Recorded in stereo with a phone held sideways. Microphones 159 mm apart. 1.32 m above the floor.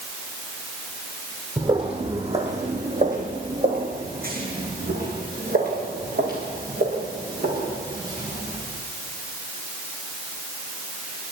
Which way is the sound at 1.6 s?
30° right (ahead or behind).